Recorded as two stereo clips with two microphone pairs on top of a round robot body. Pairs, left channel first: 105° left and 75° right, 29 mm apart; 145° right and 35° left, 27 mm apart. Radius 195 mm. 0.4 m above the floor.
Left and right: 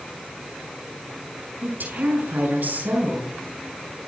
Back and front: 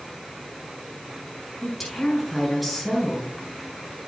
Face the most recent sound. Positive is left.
turn(degrees=-60)